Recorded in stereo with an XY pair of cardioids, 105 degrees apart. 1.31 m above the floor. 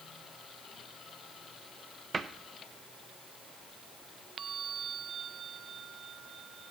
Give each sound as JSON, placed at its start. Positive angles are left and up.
{"t": 2.1, "sound": "a cupboard door", "azimuth_deg": -35, "distance_m": 0.7}